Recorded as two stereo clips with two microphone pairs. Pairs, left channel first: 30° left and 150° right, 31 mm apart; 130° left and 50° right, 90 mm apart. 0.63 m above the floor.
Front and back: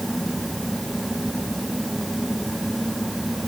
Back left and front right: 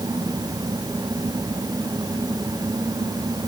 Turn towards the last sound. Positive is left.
No sound to turn to.